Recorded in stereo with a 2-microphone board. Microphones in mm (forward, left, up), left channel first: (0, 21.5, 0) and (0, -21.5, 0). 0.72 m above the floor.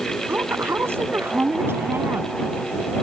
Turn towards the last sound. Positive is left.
turn(degrees=-70)  # may be behind; listen again after turning